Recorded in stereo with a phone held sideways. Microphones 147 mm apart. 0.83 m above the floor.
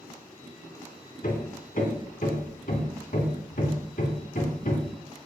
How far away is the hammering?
About 2.5 m.